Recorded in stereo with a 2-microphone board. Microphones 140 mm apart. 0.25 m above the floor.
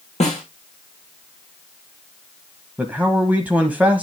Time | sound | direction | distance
0.2 | a snare drum | 50° left (ahead or behind) | 7 m
2.8 | a man speaking | 10° right (ahead or behind) | 1.1 m